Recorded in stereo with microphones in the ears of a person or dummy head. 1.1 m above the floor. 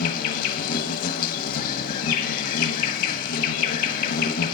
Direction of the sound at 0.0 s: 50° left (ahead or behind).